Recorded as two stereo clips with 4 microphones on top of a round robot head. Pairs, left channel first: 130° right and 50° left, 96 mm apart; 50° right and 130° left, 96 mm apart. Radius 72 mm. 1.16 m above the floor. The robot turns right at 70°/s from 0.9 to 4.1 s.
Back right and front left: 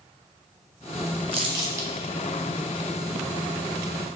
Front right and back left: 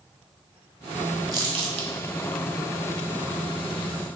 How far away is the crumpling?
About 0.8 m.